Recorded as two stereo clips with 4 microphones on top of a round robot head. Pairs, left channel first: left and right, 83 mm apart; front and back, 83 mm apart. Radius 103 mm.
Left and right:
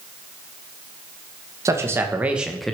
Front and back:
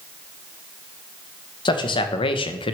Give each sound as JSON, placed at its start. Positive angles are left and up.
{"t": 1.6, "sound": "a man speaking", "azimuth_deg": -30, "distance_m": 1.4}